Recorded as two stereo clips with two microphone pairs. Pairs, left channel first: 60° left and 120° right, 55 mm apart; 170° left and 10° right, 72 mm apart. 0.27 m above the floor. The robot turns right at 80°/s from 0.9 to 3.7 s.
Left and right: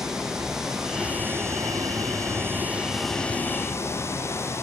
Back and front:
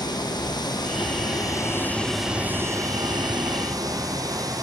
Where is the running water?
160° left, 5 m; by 4.7 s 20° left, 5 m.